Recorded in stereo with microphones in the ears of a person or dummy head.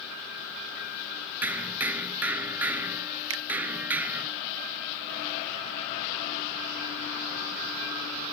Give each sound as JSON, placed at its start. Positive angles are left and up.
{"t": 1.4, "sound": "hammering", "side_deg": -20}
{"t": 3.3, "sound": "a finger snap", "side_deg": -85}